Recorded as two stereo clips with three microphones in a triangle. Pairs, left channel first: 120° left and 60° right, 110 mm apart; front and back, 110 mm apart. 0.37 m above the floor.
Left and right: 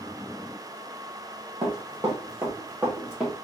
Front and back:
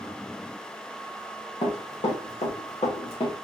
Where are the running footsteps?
10° right, 2 m; by 3.4 s 25° left, 2 m.